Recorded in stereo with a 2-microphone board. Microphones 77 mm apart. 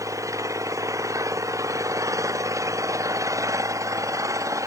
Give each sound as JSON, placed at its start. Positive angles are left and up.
{"t": 0.0, "sound": "an engine running", "side_deg": -45}